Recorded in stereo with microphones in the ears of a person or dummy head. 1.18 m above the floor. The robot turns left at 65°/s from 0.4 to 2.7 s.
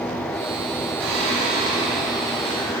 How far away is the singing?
About 4.5 m.